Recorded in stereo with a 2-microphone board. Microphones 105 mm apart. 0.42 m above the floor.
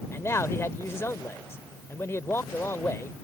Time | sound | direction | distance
0.1 | a man speaking | 25° left (ahead or behind) | ?